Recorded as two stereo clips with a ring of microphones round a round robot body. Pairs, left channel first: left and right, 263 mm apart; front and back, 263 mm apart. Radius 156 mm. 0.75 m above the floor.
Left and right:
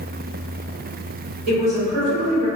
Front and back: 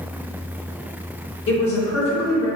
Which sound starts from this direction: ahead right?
A woman speaking, at 1.5 s.